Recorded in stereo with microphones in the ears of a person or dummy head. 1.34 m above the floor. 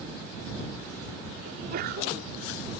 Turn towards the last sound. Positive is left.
turn(degrees=-50)  # may be behind; listen again after turning